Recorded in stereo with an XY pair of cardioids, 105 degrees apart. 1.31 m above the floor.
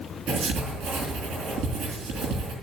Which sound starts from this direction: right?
Writing, at 0.3 s.